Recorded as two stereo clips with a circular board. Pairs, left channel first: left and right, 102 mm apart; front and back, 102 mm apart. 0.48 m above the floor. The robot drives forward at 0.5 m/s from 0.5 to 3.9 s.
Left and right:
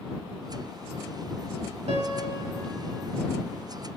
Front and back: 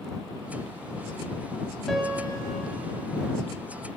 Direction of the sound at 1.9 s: 90° right.